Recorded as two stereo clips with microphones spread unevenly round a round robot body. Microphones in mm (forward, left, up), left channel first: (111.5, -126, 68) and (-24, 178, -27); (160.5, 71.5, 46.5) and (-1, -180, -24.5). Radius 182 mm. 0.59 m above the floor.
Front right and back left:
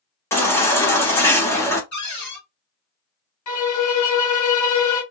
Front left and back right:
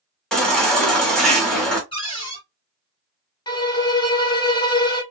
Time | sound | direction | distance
0.3 | a baby crying | straight behind | 0.6 m
1.9 | a cupboard door | 25° right | 1.7 m
3.5 | a violin | 25° right | 1.0 m